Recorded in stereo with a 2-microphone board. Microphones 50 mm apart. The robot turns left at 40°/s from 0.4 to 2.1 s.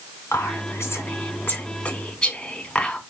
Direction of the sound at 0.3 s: 70° left (ahead or behind).